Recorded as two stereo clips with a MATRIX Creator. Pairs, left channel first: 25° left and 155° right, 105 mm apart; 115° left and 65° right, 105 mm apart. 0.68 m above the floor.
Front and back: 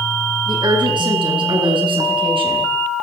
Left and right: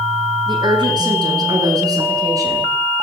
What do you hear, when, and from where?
0.5 s a woman speaking: 115° right, 9 m; by 2.7 s 125° right, 9 m